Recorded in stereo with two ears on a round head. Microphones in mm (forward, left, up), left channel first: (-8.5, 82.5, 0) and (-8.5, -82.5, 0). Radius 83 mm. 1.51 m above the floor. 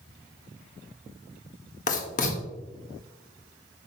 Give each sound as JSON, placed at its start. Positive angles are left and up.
{"t": 1.9, "sound": "writing", "side_deg": 40, "distance_m": 1.6}